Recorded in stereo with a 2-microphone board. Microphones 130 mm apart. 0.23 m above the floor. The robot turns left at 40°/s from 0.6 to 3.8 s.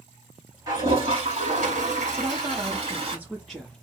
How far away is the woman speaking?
About 3 m.